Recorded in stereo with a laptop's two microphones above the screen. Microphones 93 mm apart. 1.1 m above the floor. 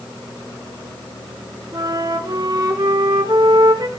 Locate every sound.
1.7 s a flute: 50° right (ahead or behind), 1.9 m